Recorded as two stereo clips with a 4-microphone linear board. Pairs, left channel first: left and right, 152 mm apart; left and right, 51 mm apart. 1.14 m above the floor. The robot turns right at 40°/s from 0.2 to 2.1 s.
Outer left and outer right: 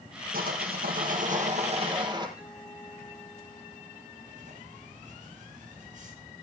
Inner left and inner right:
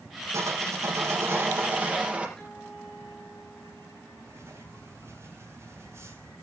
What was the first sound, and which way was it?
Sawing, 100° right.